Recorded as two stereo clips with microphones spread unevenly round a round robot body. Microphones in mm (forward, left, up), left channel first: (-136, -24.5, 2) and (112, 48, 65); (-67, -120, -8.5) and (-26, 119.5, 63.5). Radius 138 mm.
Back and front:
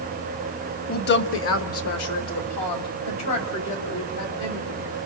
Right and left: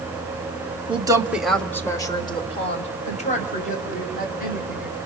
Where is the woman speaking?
155° left, 1.5 m; by 4.9 s 150° right, 5.5 m.